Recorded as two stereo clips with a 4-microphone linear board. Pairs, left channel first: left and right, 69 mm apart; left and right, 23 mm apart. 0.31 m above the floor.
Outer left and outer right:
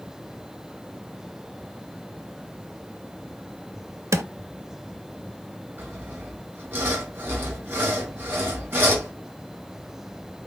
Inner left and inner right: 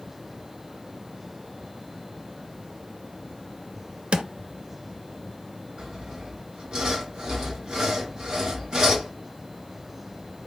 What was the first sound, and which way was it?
A drawer, 50° right (ahead or behind).